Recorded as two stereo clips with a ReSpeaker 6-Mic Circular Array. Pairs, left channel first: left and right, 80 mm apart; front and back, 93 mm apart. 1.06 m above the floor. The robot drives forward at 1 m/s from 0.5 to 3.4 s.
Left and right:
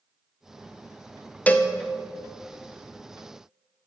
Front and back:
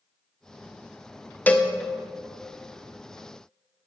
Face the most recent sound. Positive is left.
turn(degrees=175)